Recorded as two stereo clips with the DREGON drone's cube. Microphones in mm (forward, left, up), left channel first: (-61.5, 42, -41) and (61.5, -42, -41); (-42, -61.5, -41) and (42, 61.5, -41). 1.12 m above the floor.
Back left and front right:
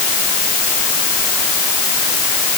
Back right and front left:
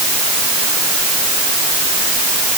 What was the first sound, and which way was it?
Only background noise.